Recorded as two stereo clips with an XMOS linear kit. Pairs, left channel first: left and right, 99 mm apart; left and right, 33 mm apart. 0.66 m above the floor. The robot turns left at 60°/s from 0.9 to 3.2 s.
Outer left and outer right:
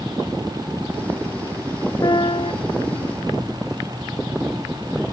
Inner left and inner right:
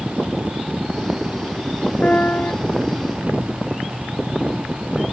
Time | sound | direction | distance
2.0 | a piano | 135° left | ?